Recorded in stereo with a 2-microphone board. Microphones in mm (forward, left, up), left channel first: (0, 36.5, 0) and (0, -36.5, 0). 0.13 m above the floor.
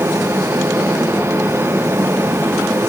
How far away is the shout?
No shout in this recording.